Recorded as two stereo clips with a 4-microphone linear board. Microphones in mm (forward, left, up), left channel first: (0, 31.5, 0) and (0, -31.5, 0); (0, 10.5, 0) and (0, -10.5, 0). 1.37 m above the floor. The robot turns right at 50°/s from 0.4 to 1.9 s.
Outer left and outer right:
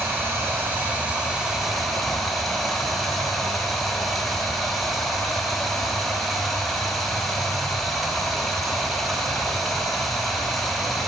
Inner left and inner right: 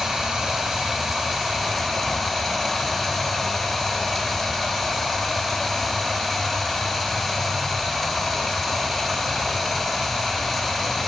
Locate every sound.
0.0 s running water: 75° right, 1.0 m; by 11.1 s straight ahead, 1.0 m